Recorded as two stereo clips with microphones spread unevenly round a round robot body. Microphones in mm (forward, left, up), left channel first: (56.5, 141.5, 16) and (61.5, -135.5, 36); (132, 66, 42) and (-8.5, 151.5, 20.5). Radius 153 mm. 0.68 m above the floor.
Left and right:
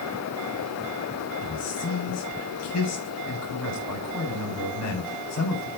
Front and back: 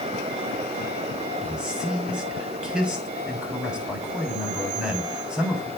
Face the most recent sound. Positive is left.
turn(degrees=65)